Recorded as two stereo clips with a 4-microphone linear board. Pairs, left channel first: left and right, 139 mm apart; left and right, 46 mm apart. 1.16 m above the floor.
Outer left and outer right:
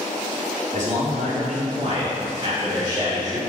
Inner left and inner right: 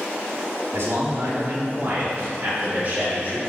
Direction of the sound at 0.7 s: 65° right (ahead or behind).